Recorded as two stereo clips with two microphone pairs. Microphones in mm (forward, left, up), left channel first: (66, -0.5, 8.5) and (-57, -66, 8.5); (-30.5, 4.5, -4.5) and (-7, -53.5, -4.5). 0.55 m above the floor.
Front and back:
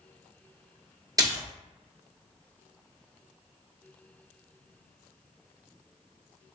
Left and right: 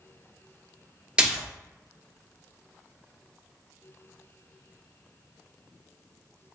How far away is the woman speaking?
I don't hear a woman speaking.